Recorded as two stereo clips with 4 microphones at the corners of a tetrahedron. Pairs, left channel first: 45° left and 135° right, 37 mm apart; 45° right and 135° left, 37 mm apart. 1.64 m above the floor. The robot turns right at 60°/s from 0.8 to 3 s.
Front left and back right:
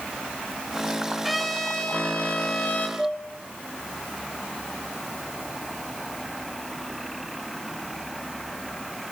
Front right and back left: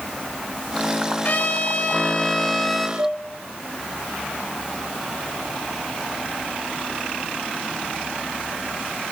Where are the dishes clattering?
145° left, 6 m.